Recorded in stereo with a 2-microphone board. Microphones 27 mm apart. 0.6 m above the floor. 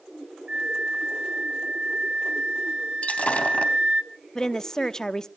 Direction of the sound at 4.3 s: 20° left (ahead or behind).